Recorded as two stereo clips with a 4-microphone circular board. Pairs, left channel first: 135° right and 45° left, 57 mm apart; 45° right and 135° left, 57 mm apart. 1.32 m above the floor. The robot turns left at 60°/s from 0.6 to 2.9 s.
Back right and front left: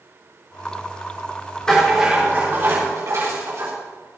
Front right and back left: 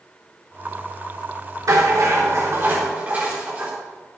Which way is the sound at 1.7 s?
150° left.